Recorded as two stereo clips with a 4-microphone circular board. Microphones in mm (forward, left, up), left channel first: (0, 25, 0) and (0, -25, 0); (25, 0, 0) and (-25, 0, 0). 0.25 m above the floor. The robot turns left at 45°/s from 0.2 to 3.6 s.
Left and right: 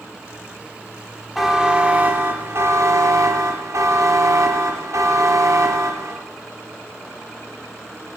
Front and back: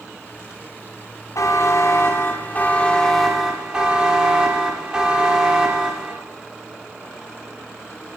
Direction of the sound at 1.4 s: 5° right.